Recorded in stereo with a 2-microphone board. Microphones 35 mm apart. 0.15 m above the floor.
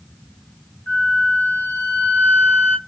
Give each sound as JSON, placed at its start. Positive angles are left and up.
{"t": 0.9, "sound": "a flute", "side_deg": 60, "distance_m": 0.8}